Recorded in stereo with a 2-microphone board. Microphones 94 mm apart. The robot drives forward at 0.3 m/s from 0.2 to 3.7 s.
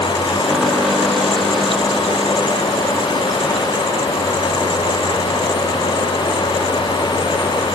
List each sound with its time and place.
Only background noise.